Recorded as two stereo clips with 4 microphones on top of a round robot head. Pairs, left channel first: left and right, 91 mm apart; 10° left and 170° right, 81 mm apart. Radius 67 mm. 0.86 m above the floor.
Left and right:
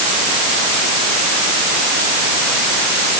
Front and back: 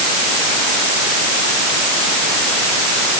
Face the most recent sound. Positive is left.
No sound to turn to.